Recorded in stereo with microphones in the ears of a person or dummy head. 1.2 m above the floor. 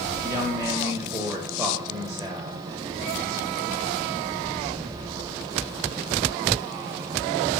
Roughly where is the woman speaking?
Centre.